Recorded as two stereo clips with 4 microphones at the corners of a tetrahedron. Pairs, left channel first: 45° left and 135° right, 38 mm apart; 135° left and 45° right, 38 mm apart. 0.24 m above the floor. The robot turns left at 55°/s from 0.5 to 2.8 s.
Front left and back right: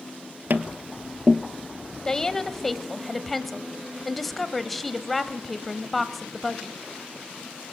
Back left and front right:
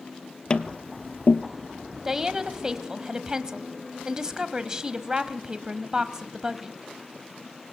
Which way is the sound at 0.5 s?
165° right.